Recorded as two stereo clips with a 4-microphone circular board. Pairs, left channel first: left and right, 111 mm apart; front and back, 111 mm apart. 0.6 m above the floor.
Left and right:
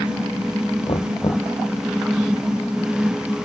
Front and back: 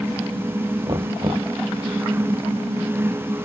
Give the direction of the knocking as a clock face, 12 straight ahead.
8 o'clock.